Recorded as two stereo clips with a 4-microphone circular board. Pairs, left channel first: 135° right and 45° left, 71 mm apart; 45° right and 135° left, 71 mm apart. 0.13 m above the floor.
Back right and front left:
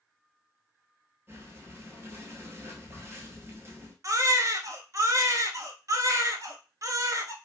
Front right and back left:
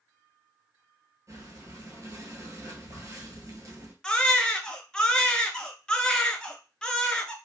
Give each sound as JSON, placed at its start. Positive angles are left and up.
{"t": 1.3, "sound": "breathing", "azimuth_deg": 95, "distance_m": 0.9}
{"t": 4.0, "sound": "a baby crying", "azimuth_deg": 30, "distance_m": 0.5}